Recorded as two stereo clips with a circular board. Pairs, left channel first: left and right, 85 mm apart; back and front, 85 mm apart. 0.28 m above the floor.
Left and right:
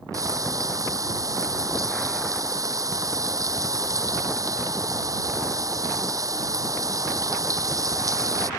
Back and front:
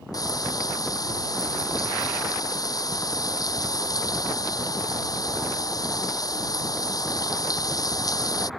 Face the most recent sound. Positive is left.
turn(degrees=-135)